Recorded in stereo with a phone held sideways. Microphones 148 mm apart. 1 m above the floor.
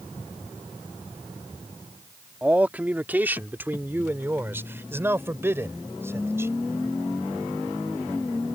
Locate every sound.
2.4 s a man speaking: 10° right (ahead or behind); by 6.5 s 20° right (ahead or behind)